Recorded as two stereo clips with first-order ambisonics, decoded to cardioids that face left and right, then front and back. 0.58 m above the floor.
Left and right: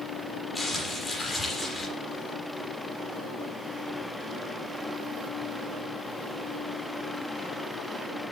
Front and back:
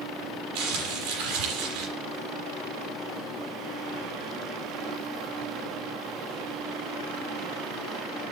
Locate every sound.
0.6 s crumpling: 170° left, 6.5 m